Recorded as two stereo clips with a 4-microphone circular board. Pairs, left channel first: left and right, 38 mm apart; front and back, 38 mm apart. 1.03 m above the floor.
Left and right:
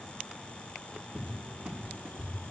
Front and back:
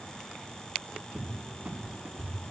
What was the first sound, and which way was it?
A cupboard door, 140° right.